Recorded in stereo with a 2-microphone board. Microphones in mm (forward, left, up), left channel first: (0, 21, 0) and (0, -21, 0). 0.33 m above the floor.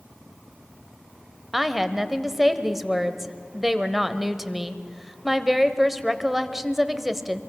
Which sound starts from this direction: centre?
A woman speaking, at 1.5 s.